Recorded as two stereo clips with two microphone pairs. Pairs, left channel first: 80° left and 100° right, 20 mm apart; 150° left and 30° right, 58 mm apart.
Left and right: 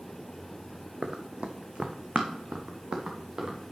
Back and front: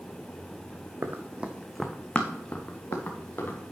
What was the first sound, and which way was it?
Running footsteps, 65° right.